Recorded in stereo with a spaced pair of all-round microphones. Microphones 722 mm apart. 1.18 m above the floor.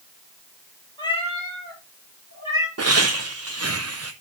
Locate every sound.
1.0 s a cat meowing: 5° left (ahead or behind), 4 m; by 2.7 s 30° left (ahead or behind), 3.5 m
2.8 s laughter: 25° right (ahead or behind), 0.5 m